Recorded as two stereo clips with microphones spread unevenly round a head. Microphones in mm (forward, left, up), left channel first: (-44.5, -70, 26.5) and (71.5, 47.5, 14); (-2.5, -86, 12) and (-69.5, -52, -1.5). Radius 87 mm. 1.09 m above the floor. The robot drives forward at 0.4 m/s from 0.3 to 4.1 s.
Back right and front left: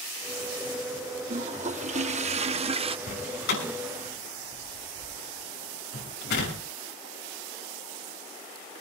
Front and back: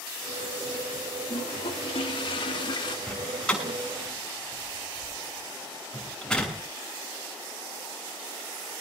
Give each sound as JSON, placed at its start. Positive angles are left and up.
{"t": 1.3, "sound": "a toilet flushing", "azimuth_deg": 0, "distance_m": 1.3}
{"t": 3.1, "sound": "a door slam", "azimuth_deg": -105, "distance_m": 6.5}